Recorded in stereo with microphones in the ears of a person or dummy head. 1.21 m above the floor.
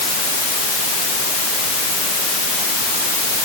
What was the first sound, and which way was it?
Only background noise.